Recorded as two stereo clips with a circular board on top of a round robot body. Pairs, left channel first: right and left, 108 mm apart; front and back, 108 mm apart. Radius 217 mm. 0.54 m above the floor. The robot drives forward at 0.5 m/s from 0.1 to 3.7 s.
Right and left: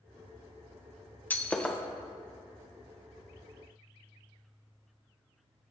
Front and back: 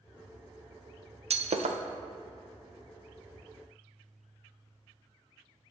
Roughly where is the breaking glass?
Behind.